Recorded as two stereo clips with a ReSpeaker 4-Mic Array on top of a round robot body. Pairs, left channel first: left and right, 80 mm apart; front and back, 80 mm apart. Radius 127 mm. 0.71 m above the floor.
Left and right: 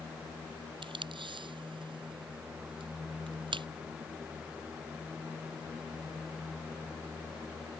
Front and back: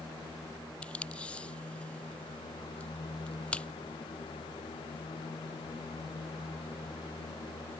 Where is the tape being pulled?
75° right.